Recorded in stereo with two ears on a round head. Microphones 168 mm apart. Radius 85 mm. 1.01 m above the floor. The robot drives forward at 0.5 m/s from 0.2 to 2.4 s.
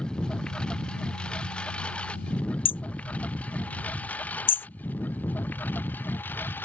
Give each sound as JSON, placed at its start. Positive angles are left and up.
{"t": 0.0, "sound": "a lawn mower", "side_deg": 5}
{"t": 2.6, "sound": "hammering", "side_deg": 25}